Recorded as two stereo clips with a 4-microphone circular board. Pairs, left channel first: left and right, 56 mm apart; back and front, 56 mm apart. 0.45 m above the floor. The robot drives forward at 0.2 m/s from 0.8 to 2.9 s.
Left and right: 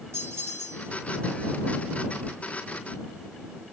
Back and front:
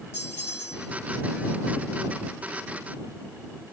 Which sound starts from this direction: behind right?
A bell, at 0.1 s.